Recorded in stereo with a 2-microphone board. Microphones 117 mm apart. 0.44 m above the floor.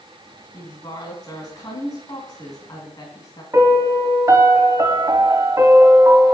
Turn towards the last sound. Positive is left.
turn(degrees=-30)  # may be behind; listen again after turning